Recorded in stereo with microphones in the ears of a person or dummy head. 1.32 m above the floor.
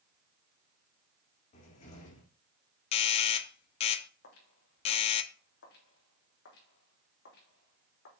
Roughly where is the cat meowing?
No cat meowing in this recording.